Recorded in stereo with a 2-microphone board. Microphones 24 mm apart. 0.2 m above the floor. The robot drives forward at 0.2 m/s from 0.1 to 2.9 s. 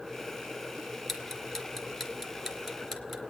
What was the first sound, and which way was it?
Ticking, 15° left (ahead or behind).